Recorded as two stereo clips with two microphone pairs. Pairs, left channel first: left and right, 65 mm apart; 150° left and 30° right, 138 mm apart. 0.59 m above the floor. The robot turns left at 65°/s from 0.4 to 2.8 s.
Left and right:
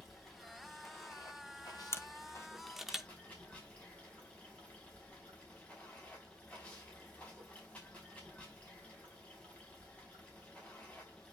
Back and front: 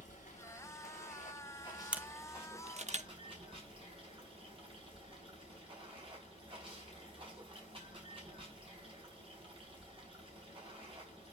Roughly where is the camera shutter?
Ahead left.